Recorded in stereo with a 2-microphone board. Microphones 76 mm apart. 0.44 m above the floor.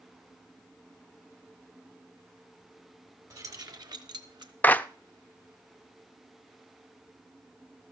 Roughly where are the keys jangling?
Right.